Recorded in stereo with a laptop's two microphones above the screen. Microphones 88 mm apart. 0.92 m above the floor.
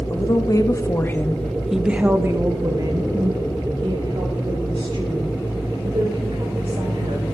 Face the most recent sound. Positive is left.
turn(degrees=-80)